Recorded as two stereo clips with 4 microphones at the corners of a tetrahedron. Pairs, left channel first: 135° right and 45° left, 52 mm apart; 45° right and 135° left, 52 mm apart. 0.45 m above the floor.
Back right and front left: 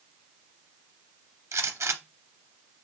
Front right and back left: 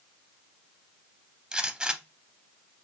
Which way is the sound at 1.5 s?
65° left.